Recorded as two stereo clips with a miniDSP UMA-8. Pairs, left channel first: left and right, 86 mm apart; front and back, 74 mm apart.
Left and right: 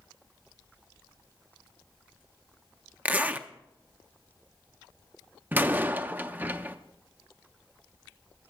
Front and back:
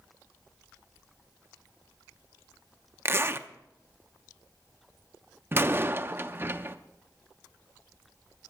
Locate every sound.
3.0 s a zipper: 150° right, 0.6 m
5.5 s a door slam: 145° right, 0.5 m